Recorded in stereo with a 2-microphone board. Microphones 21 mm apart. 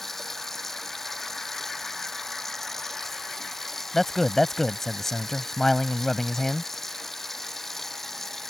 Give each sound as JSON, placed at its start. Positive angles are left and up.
{"t": 0.0, "sound": "running water", "side_deg": 15}
{"t": 3.9, "sound": "a man speaking", "side_deg": 15}